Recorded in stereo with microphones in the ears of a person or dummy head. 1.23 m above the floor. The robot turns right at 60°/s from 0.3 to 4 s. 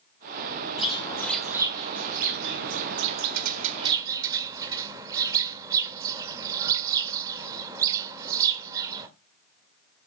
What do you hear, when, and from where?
0.8 s a bird: 30° left (ahead or behind), 1.8 m; by 9.1 s 15° right (ahead or behind), 1.8 m